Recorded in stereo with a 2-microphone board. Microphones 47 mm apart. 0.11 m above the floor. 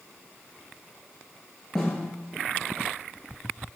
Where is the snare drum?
5° left (ahead or behind), 0.9 m.